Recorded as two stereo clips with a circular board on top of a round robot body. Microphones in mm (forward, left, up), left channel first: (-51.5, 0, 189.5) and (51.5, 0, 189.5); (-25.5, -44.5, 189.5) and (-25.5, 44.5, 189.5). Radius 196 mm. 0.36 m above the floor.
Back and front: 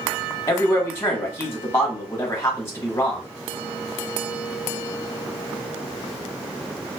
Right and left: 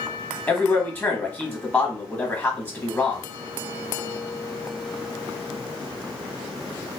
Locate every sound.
0.5 s a man speaking: 140° right, 1.3 m